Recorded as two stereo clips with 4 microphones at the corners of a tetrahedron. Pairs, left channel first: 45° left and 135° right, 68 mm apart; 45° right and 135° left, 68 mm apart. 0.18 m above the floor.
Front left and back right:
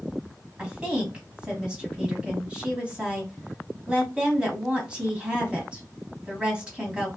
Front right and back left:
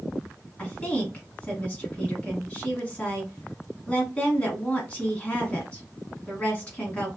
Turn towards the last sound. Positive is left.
turn(degrees=-85)